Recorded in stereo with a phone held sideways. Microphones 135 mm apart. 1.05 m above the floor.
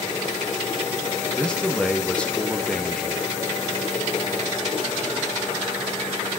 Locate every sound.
1.4 s a man speaking: 5° left (ahead or behind), 1.6 m